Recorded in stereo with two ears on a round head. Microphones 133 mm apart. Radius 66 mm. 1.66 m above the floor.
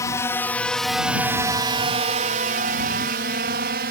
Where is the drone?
20° left (ahead or behind); by 3.9 s 70° right (ahead or behind).